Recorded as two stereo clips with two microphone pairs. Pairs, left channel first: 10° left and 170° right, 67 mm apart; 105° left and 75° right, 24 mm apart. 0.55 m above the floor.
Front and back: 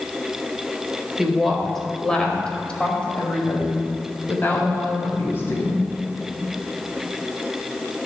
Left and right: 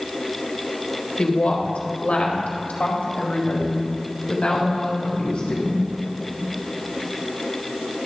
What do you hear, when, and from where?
1.2 s a woman speaking: 105° left, 1.6 m; by 5.9 s 60° left, 3.5 m